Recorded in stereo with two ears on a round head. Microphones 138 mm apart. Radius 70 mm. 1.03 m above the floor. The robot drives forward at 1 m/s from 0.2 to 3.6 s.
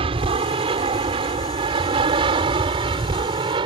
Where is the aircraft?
35° right (ahead or behind); by 3.7 s 30° right (ahead or behind).